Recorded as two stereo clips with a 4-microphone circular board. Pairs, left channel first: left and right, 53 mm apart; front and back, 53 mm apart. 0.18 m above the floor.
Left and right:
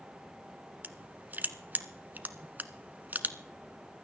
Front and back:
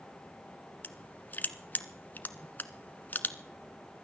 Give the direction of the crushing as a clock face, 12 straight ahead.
1 o'clock.